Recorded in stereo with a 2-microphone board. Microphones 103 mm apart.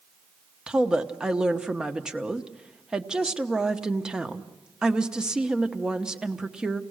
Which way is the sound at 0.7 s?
5° right (ahead or behind).